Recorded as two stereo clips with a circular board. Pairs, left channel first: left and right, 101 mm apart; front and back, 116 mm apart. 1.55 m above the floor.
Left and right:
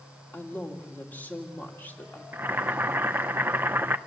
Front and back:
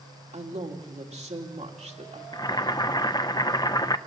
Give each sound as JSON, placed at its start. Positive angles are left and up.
{"t": 0.3, "sound": "a man speaking", "azimuth_deg": 160, "distance_m": 2.5}
{"t": 2.3, "sound": "boiling", "azimuth_deg": -30, "distance_m": 0.6}